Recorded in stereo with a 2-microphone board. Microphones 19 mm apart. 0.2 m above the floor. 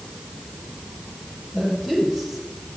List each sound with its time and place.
1.5 s a woman speaking: 15° right (ahead or behind), 5.5 m